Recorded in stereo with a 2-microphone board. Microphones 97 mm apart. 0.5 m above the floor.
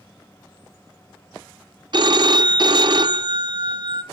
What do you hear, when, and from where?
1.9 s a phone ringing: 50° right (ahead or behind), 0.7 m